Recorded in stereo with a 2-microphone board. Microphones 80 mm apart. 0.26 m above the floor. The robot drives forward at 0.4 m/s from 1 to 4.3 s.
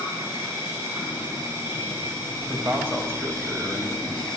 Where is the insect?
35° right (ahead or behind), 4 m; by 4.4 s 50° right (ahead or behind), 3 m.